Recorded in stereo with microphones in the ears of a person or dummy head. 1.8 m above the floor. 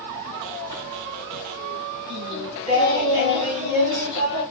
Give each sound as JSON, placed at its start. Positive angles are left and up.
{"t": 2.1, "sound": "singing", "side_deg": -30, "distance_m": 2.5}